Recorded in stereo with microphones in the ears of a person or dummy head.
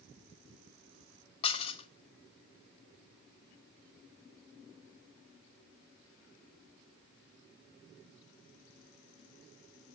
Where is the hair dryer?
I don't hear a hair dryer.